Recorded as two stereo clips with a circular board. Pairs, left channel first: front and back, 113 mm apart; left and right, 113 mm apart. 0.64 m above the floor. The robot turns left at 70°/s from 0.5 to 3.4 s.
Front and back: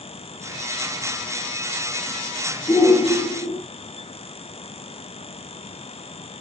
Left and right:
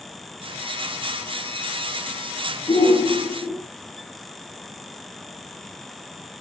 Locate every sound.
2.7 s a shout: 55° left, 1.9 m; by 3.6 s 5° left, 1.9 m